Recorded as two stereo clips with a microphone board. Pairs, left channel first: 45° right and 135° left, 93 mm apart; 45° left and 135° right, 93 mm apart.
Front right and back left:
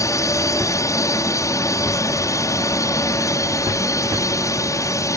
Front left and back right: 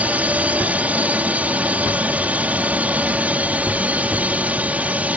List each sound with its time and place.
0.0 s a drone: 70° right